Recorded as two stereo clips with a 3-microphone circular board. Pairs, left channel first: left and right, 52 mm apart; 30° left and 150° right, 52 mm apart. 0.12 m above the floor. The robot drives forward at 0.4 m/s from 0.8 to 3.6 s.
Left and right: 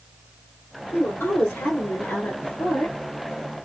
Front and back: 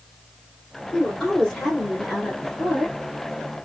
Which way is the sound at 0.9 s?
105° left.